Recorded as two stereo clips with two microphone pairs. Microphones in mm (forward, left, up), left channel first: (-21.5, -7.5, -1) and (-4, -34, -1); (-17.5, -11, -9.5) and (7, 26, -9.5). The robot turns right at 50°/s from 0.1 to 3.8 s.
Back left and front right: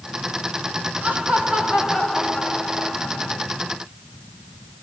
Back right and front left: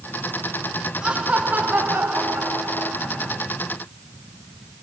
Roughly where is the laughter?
Ahead.